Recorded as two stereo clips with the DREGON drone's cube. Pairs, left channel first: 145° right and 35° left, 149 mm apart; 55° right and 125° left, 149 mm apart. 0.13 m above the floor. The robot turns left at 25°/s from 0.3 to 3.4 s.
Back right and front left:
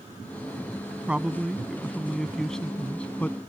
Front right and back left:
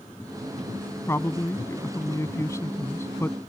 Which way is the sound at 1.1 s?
30° right.